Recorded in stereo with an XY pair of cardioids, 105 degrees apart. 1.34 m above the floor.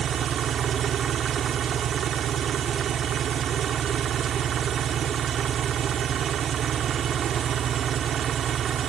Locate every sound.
0.0 s an engine running: 55° right